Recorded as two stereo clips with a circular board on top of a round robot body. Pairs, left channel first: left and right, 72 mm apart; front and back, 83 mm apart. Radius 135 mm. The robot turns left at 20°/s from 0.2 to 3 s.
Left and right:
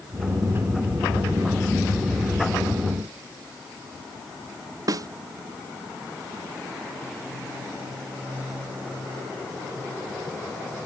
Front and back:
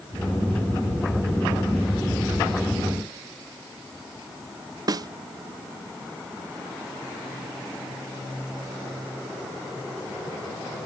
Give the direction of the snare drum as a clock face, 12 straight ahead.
4 o'clock.